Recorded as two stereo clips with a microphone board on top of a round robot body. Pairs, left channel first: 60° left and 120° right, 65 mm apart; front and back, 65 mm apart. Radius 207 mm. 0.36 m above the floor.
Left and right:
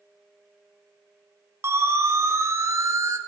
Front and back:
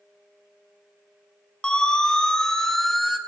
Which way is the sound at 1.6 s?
75° right.